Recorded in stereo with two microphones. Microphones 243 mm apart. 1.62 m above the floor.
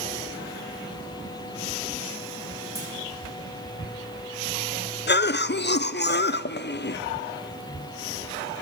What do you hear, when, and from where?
2.8 s a clunk: 15° right (ahead or behind), 8 m
5.1 s a cough: 45° left (ahead or behind), 0.5 m